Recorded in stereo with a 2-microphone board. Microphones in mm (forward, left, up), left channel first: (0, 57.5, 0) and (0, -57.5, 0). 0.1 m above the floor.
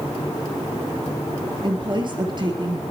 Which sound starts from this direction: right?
A woman speaking, at 1.6 s.